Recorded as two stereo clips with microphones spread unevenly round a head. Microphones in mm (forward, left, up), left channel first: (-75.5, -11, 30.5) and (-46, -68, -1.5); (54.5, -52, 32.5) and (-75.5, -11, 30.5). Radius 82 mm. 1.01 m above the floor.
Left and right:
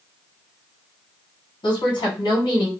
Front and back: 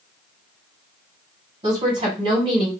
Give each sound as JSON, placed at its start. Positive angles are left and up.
{"t": 1.6, "sound": "a woman speaking", "azimuth_deg": 115, "distance_m": 1.5}